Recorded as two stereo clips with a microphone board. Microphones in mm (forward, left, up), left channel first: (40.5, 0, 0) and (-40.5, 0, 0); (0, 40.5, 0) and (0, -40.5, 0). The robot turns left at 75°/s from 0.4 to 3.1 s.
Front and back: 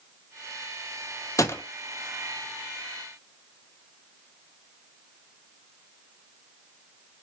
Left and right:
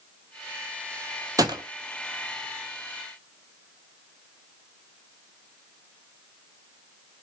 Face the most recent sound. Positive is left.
turn(degrees=-175)